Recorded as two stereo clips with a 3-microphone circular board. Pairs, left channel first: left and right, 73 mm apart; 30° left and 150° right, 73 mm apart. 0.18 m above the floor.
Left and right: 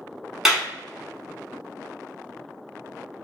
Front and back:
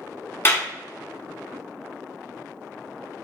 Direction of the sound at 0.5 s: 10° right.